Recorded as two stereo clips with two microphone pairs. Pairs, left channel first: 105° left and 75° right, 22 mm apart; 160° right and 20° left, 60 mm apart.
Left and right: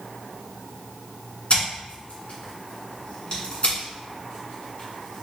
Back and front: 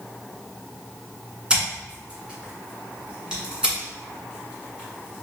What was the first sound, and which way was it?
Scissors, 90° left.